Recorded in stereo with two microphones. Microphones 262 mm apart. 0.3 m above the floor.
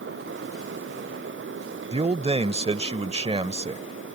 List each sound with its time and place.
1.9 s a man speaking: 25° right (ahead or behind)